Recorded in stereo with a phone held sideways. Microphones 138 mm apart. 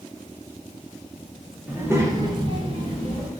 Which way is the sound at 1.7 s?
10° right (ahead or behind).